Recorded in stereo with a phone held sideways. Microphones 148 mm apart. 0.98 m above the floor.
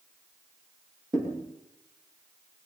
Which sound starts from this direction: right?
A thud, at 1.1 s.